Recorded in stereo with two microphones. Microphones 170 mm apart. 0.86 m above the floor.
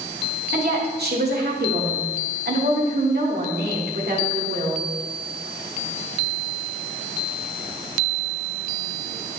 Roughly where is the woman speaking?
Right.